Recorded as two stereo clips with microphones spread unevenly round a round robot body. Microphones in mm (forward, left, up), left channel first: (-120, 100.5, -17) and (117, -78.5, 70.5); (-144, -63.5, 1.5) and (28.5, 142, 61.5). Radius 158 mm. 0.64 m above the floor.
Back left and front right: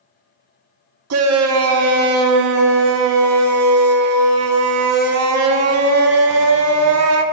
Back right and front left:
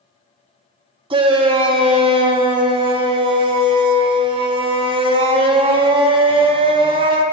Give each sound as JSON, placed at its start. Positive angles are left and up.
{"t": 1.1, "sound": "a shout", "azimuth_deg": -30, "distance_m": 0.5}